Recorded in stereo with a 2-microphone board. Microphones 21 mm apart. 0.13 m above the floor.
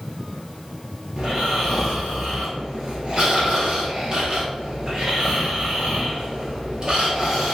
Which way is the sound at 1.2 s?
40° right (ahead or behind).